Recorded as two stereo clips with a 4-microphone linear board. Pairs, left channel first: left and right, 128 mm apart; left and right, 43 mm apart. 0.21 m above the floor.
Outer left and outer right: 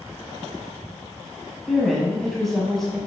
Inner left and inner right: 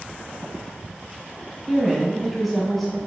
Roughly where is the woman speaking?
Centre.